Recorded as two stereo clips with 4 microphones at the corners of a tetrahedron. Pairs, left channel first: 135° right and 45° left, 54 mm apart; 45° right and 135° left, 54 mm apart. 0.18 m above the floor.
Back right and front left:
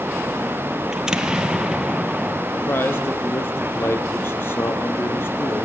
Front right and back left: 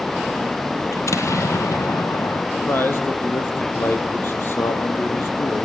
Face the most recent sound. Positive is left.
turn(degrees=-90)